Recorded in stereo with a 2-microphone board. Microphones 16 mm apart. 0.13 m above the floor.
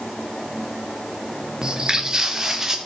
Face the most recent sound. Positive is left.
turn(degrees=-25)  # may be behind; listen again after turning